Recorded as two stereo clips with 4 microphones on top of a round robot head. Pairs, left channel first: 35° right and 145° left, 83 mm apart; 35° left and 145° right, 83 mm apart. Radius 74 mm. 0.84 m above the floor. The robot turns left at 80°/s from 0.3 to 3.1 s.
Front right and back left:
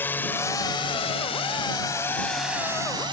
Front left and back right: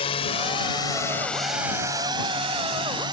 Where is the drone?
30° left; by 3.1 s straight behind.